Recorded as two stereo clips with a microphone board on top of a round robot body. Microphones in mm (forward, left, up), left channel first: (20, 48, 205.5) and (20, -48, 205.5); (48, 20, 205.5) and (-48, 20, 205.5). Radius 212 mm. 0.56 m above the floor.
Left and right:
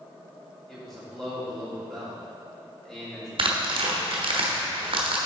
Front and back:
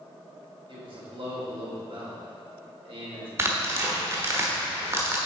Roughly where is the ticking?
No ticking in this recording.